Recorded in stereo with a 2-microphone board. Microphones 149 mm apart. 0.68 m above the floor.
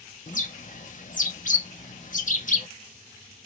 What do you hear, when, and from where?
0.3 s a bird: 55° left (ahead or behind), 0.6 m